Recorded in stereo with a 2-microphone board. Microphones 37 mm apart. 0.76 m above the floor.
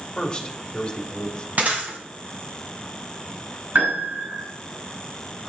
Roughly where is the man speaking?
Left.